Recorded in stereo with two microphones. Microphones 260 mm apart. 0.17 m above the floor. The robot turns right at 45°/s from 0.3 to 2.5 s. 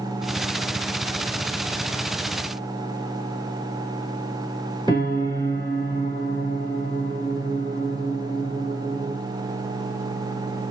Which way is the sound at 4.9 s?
15° left (ahead or behind).